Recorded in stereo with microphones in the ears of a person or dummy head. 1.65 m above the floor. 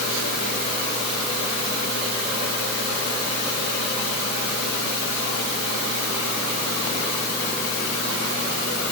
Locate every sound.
Only background noise.